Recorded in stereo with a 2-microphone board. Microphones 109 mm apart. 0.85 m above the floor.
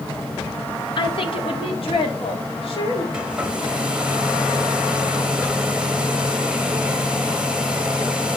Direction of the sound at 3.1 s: 10° right (ahead or behind).